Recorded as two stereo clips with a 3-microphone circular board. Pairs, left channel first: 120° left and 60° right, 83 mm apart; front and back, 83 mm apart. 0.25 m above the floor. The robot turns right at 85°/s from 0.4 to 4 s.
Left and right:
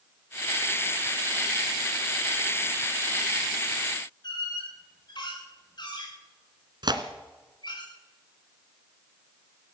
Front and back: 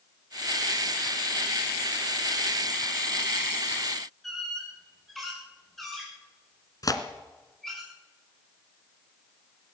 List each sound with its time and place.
4.2 s a squeak: 90° left, 8 m
6.8 s tearing paper: 40° right, 1.7 m